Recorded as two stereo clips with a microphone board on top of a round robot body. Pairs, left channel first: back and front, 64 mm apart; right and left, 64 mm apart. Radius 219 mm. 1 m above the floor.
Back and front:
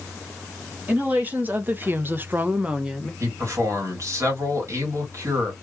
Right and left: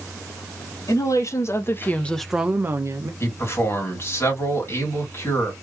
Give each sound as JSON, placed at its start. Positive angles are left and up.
{"t": 0.9, "sound": "a woman speaking", "azimuth_deg": -65, "distance_m": 1.6}
{"t": 3.2, "sound": "a man speaking", "azimuth_deg": -40, "distance_m": 2.5}